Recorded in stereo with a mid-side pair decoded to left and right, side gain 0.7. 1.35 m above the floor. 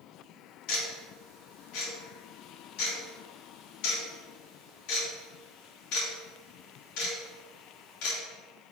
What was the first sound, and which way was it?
Ticking, 65° left.